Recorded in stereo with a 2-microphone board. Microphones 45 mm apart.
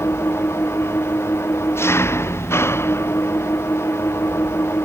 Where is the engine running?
70° left (ahead or behind).